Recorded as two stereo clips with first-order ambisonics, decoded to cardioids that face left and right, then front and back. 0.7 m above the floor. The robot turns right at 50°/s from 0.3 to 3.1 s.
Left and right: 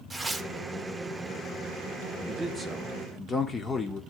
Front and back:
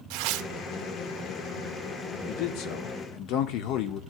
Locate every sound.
0.1 s tearing paper: 170° right, 0.6 m; by 0.5 s 160° right, 0.6 m
2.3 s a man speaking: 25° right, 1.6 m; by 4.0 s 15° left, 1.6 m